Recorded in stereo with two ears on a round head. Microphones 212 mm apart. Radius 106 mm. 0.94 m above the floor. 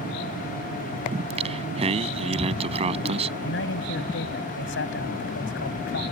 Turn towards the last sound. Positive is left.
turn(degrees=50)  # may be behind; listen again after turning